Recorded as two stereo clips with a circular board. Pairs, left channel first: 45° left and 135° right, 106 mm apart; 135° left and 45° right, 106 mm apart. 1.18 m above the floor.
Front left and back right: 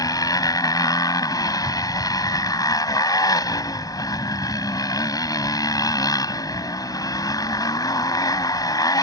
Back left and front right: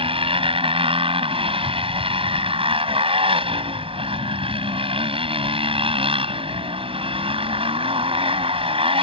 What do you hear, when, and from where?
0.0 s a motorcycle: 10° right